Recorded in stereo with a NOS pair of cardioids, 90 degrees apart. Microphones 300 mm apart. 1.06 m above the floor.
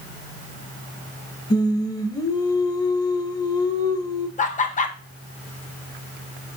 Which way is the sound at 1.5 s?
15° left.